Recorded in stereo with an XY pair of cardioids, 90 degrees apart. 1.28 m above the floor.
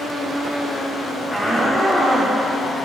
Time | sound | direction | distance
1.3 | a shout | 10° left | 3.5 m